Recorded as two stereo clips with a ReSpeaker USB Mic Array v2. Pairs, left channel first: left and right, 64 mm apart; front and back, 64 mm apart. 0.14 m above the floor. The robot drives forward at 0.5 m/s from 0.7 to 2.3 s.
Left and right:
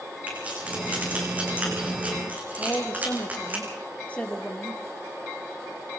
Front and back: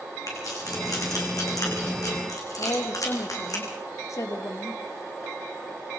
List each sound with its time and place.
0.3 s keys jangling: 20° right, 6.5 m; by 3.6 s 25° right, 6 m
2.6 s a woman speaking: 25° left, 3 m